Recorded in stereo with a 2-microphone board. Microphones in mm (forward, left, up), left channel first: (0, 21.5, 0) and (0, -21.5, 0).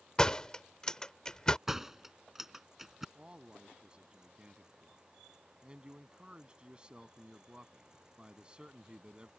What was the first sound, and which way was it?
A door slam, 15° left (ahead or behind).